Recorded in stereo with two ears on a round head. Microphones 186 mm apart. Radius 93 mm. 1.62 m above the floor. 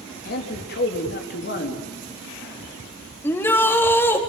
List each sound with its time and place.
0.2 s a man speaking: 50° left (ahead or behind), 3.5 m
3.2 s a shout: 10° left (ahead or behind), 3.5 m